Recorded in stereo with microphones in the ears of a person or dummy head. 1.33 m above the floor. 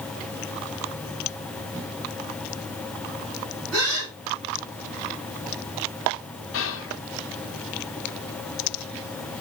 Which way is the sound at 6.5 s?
60° left (ahead or behind).